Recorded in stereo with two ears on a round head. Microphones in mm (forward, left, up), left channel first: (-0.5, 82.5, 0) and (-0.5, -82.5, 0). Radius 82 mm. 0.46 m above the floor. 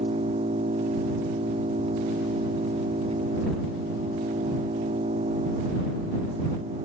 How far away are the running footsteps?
I don't hear running footsteps.